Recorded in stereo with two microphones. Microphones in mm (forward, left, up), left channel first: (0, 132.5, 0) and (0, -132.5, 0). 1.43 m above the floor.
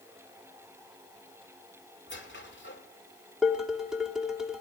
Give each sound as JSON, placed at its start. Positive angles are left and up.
{"t": 2.1, "sound": "a squeak", "side_deg": 45, "distance_m": 1.9}
{"t": 3.4, "sound": "dishes clattering", "side_deg": 0, "distance_m": 2.0}